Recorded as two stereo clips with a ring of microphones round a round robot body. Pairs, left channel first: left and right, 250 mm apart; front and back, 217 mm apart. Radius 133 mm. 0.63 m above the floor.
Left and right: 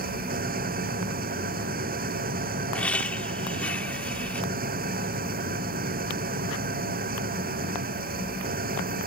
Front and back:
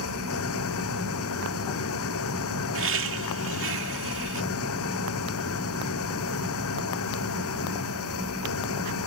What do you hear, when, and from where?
0.0 s an engine running: 35° right
2.7 s laughter: 175° left